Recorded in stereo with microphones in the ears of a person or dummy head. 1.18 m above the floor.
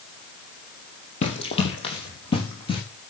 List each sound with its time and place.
1.2 s running footsteps: 30° left (ahead or behind), 3 m; by 2.8 s 20° left (ahead or behind), 4.5 m